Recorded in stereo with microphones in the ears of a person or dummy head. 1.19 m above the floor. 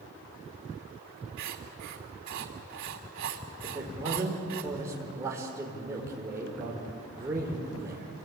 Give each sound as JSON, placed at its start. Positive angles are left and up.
{"t": 1.4, "sound": "writing", "side_deg": -85, "distance_m": 2.5}
{"t": 3.6, "sound": "a man speaking", "side_deg": -15, "distance_m": 4.5}